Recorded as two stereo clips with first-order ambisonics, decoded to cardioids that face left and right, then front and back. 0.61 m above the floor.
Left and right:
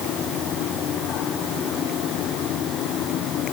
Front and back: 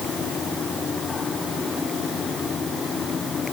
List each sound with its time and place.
Only background noise.